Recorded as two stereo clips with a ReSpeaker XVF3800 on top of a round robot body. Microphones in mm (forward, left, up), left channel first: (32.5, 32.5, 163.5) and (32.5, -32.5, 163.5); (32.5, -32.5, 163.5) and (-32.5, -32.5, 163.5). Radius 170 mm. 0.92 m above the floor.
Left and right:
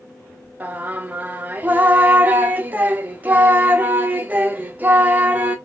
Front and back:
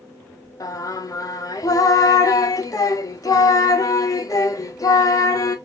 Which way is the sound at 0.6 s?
25° right.